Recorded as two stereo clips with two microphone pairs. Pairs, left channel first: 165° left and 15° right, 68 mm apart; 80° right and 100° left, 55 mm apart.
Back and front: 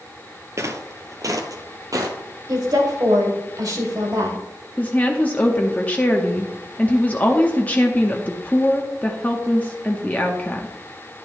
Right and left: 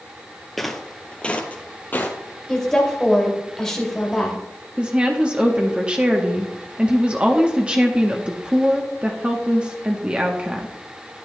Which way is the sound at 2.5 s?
Straight ahead.